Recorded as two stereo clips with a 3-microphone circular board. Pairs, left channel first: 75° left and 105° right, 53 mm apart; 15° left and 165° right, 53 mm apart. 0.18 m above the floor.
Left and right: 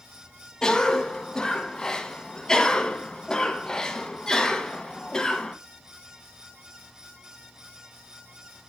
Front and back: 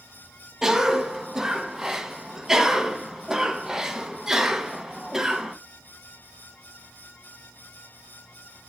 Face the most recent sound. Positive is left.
turn(degrees=130)